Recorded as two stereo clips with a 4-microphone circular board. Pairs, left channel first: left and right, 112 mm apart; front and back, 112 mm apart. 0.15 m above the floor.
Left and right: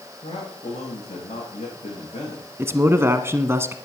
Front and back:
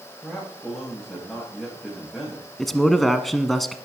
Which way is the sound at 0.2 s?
90° left.